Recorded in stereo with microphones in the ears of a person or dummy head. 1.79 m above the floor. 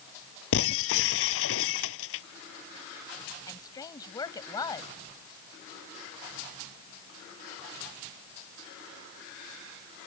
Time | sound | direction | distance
0.5 | breaking glass | 80° left | ?
3.5 | a woman speaking | 15° left (ahead or behind) | ?